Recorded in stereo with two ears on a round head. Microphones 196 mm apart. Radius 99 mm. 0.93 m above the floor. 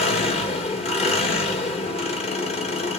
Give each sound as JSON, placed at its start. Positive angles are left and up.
{"t": 0.0, "sound": "an engine running", "side_deg": 30, "distance_m": 1.1}